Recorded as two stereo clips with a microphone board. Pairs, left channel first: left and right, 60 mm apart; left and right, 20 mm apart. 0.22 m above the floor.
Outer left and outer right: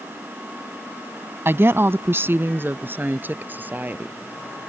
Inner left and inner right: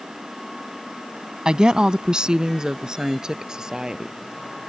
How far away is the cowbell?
I don't hear a cowbell.